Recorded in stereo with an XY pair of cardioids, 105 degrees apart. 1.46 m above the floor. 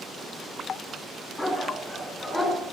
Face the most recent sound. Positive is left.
turn(degrees=20)